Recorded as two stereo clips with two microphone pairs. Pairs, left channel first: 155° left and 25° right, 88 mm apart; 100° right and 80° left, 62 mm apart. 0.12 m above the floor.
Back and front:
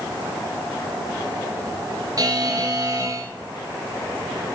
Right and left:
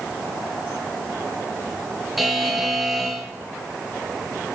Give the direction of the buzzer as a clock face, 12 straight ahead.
12 o'clock.